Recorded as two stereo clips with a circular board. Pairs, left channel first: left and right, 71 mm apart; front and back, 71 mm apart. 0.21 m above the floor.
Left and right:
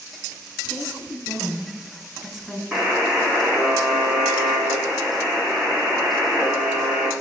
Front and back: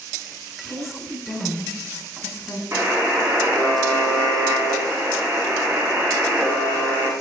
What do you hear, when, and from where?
0.6 s a woman speaking: 10° left, 1.5 m
2.7 s a buzzer: 165° right, 1.9 m